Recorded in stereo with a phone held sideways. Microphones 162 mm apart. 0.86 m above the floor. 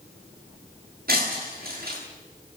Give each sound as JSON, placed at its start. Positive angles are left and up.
{"t": 1.1, "sound": "breaking glass", "side_deg": -70, "distance_m": 9.5}